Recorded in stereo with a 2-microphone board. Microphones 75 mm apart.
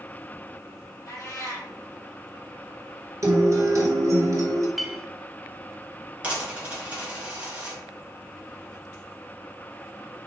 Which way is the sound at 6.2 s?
15° right (ahead or behind).